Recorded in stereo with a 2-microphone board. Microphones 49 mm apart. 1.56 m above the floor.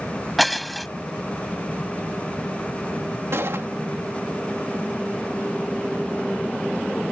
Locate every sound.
0.4 s breaking glass: centre (ahead or behind)
3.3 s a gunshot: 60° right (ahead or behind)